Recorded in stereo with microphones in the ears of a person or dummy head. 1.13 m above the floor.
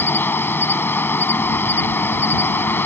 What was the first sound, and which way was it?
An insect, 10° left (ahead or behind).